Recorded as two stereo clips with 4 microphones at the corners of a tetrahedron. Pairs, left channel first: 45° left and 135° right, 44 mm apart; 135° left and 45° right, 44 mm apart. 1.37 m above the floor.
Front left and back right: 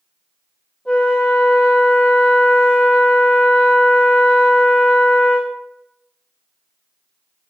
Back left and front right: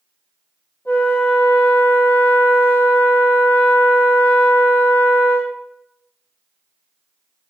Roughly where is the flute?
Behind left.